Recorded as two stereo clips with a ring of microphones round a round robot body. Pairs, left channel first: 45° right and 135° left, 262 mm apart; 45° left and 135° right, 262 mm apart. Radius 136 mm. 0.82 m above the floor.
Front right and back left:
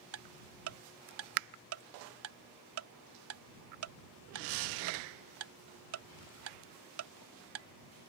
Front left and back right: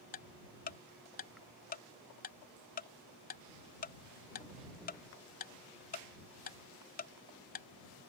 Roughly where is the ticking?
Left.